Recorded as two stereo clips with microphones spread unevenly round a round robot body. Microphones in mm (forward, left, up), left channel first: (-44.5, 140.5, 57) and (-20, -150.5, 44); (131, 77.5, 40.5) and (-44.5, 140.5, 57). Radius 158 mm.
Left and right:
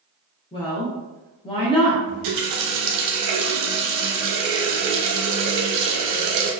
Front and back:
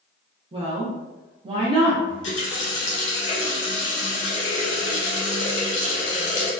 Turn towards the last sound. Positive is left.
turn(degrees=-55)